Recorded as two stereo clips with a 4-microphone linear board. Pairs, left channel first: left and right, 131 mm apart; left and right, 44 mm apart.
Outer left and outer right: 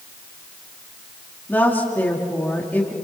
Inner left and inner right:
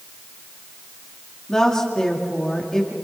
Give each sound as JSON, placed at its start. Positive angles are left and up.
{"t": 1.5, "sound": "a woman speaking", "side_deg": 15, "distance_m": 2.5}